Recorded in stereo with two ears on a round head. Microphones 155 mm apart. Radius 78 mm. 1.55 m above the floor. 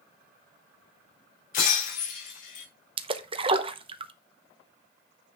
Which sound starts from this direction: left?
Breaking glass, at 1.5 s.